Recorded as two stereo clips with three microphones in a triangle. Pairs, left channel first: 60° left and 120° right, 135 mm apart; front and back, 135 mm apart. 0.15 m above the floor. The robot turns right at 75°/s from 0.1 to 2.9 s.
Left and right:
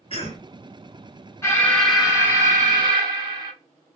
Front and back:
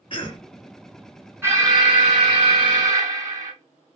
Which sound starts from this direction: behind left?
An alarm, at 1.4 s.